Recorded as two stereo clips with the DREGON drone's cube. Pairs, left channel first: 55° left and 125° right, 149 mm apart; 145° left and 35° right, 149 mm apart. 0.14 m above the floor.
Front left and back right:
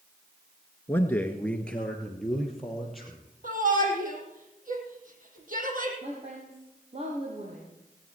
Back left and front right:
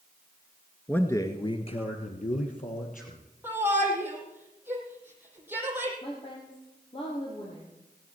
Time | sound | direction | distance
0.9 | a man speaking | 90° left | 1.0 m
3.4 | a shout | 110° right | 4.5 m
6.0 | a woman speaking | 165° right | 3.5 m